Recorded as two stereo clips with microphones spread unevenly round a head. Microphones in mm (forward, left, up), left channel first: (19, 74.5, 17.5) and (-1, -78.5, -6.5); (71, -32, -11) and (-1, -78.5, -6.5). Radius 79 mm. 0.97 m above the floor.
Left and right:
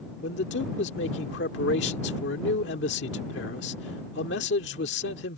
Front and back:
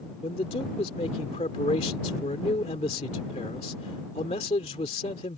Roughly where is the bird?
No bird in this recording.